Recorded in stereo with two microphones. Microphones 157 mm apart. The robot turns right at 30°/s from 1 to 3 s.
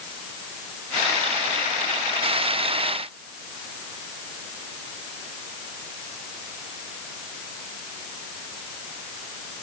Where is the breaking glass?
No breaking glass in this recording.